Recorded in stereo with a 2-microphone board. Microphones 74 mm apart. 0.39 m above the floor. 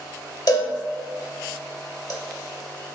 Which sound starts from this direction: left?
A cowbell, at 0.5 s.